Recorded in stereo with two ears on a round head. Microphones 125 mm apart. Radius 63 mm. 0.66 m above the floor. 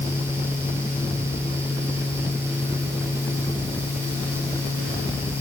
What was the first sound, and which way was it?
Only background noise.